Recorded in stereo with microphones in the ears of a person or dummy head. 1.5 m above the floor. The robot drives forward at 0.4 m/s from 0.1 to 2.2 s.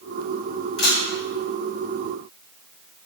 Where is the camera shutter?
60° left (ahead or behind), 1.6 m; by 1.0 s 55° left (ahead or behind), 1.6 m.